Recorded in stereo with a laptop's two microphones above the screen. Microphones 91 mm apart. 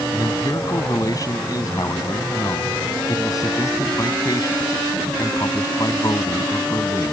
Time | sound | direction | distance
0.1 | a man speaking | 40° left (ahead or behind) | ?